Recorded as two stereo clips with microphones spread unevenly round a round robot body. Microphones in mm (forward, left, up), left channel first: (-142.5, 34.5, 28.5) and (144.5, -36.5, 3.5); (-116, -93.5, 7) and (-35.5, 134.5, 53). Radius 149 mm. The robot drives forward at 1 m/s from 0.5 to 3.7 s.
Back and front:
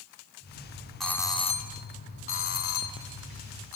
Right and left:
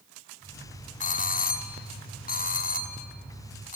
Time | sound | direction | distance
1.0 | a doorbell | 100° right | 1.4 m